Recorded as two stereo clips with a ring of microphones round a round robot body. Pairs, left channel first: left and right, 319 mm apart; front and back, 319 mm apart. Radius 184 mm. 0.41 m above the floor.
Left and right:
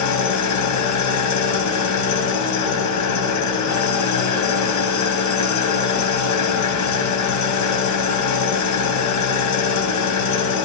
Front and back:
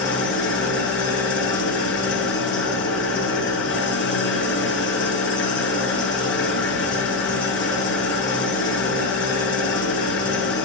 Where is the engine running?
55° left, 2.0 m.